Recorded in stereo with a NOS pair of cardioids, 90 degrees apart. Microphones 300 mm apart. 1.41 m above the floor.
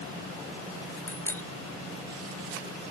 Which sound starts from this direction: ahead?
A bicycle bell, at 1.1 s.